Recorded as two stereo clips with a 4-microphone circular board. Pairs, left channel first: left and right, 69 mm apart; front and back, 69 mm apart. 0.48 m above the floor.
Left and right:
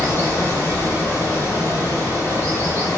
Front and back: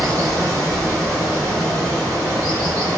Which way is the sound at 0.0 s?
145° left.